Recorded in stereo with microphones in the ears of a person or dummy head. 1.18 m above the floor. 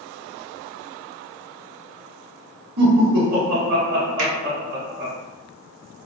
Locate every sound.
2.8 s laughter: 45° right (ahead or behind), 1.2 m
4.2 s a finger snap: 65° right (ahead or behind), 1.2 m